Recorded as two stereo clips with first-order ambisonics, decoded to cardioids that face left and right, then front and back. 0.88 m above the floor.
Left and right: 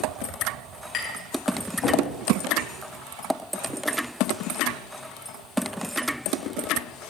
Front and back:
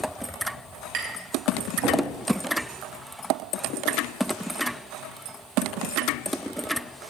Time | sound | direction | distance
0.9 | tapping | 150° left | 3 m